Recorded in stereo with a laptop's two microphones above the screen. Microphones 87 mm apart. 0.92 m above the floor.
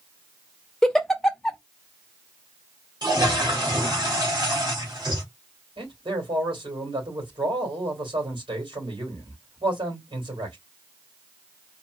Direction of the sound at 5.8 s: 75° right (ahead or behind).